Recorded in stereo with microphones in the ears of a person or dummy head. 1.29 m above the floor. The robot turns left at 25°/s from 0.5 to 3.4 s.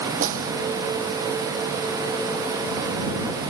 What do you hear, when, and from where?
0.2 s a snare drum: 45° right (ahead or behind)